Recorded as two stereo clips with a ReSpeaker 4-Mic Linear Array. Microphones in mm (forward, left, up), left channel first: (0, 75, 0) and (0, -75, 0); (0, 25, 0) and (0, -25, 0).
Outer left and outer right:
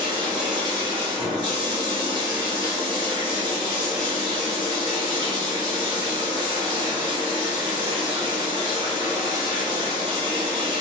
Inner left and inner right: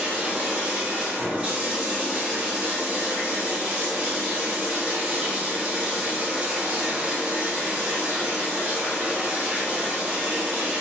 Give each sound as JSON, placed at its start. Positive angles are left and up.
{"t": 0.0, "sound": "running water", "side_deg": -25, "distance_m": 1.0}